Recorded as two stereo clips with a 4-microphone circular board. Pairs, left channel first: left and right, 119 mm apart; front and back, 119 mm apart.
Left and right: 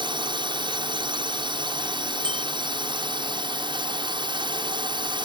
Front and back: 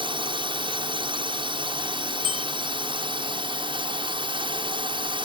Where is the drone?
135° right.